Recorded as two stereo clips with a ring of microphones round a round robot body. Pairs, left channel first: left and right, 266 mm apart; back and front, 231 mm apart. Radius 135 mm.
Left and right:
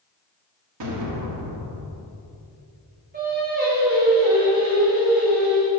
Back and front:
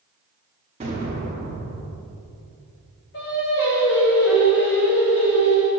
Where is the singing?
145° right, 1.7 m.